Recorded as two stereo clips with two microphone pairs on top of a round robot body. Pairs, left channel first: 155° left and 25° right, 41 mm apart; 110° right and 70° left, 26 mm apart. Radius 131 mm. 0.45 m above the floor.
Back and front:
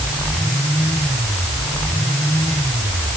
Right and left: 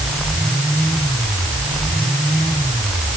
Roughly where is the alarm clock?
I don't hear an alarm clock.